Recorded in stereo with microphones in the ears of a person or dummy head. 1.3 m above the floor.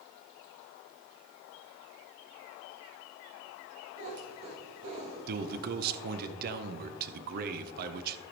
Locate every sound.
4.0 s a cat meowing: 75° right (ahead or behind), 4.5 m
5.3 s a man speaking: 55° right (ahead or behind), 0.7 m